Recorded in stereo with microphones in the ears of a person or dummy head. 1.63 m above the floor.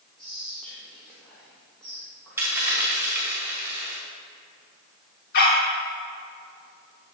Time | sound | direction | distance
0.2 | whispering | 10° left (ahead or behind) | 2 m
2.4 | a dropped coin | 10° right (ahead or behind) | 3 m
5.3 | a dog barking | 55° left (ahead or behind) | 2.0 m